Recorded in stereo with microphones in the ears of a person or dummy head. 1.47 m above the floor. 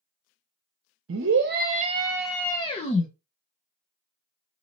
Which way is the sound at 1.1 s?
60° right (ahead or behind).